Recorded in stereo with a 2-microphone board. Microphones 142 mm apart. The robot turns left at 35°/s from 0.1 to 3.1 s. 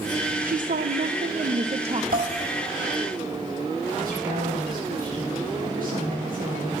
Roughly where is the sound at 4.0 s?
Right.